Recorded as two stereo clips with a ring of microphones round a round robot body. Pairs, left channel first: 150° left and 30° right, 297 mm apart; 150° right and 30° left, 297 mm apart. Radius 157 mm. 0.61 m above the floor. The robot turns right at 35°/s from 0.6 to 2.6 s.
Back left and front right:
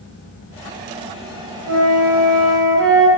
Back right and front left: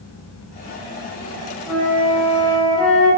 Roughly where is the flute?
Ahead right.